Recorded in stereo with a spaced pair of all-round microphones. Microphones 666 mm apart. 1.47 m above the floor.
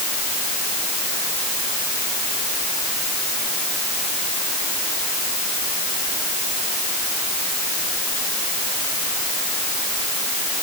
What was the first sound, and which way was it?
Only background noise.